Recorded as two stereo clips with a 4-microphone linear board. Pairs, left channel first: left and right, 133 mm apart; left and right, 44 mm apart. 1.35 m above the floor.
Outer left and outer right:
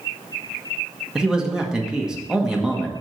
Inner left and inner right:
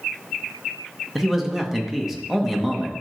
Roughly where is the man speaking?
Centre.